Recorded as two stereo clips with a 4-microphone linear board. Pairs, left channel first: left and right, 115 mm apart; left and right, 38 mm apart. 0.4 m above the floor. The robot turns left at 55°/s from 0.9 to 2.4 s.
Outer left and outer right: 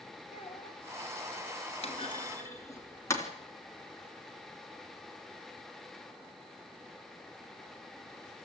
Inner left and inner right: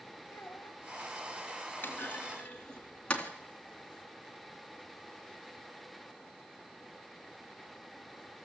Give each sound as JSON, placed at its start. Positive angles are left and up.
{"t": 0.3, "sound": "a child speaking", "side_deg": 60, "distance_m": 1.9}
{"t": 1.8, "sound": "a clunk", "side_deg": 55, "distance_m": 3.0}